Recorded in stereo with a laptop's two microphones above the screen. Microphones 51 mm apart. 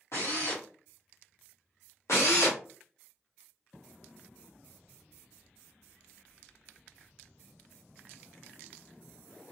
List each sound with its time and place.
0.1 s a drill: 65° left (ahead or behind), 1.4 m
2.1 s a drill: 70° left (ahead or behind), 1.1 m